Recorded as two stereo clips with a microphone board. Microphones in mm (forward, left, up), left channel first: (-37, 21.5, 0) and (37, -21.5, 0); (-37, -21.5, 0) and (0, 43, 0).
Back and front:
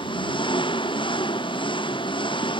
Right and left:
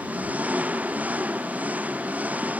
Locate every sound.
0.0 s an engine running: 130° left